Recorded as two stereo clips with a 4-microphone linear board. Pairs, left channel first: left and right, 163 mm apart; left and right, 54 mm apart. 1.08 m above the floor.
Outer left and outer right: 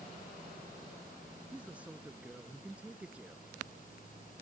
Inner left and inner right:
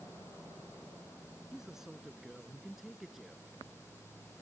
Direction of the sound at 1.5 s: 10° right (ahead or behind).